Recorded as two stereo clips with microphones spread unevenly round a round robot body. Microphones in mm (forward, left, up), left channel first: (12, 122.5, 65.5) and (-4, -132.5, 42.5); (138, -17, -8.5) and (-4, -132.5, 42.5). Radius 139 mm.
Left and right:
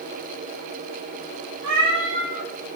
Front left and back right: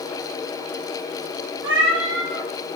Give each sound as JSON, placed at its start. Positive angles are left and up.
{"t": 1.6, "sound": "a cat meowing", "azimuth_deg": -140, "distance_m": 4.5}